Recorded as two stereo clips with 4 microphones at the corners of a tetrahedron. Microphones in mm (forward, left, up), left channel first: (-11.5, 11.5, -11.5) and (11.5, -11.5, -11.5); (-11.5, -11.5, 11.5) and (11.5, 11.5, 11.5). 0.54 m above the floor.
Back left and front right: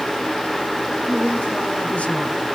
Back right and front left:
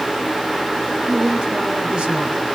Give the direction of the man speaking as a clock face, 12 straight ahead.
9 o'clock.